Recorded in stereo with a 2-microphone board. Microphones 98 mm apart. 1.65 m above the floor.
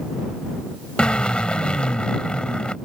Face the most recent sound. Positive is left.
turn(degrees=10)  # may be behind; listen again after turning